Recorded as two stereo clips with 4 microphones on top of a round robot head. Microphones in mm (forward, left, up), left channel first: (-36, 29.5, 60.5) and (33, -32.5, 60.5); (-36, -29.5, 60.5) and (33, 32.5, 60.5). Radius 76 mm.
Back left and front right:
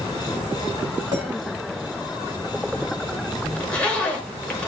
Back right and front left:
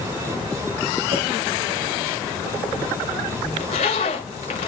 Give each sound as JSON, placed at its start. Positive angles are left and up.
{"t": 1.1, "sound": "a clink", "azimuth_deg": 10, "distance_m": 4.5}
{"t": 3.6, "sound": "a zipper", "azimuth_deg": -145, "distance_m": 1.0}